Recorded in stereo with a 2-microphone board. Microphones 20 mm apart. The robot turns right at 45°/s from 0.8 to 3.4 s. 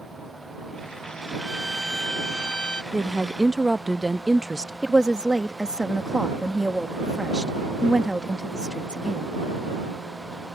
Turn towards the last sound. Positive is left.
turn(degrees=-45)  # may be behind; listen again after turning